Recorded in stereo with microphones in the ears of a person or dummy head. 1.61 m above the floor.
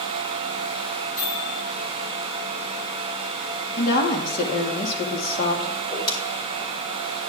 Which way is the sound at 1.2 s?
75° left (ahead or behind).